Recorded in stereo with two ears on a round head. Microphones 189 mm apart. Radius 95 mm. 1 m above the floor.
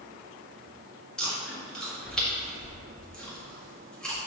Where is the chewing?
5° left (ahead or behind), 1.6 m.